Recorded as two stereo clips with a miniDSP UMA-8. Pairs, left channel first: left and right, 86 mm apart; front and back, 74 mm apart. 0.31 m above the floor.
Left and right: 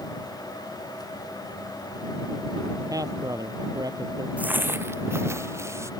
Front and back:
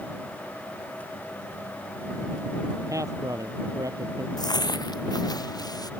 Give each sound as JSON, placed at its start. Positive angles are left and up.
{"t": 2.9, "sound": "a man speaking", "azimuth_deg": -135}
{"t": 4.4, "sound": "footsteps", "azimuth_deg": -15}